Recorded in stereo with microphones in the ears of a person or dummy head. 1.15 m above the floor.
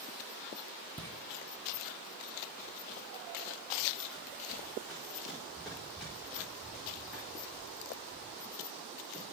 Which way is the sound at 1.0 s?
15° right (ahead or behind).